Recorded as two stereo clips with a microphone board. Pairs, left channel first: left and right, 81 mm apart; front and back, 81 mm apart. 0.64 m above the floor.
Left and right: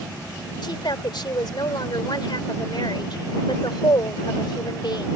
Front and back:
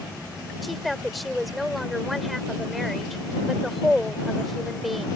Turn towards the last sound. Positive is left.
turn(degrees=90)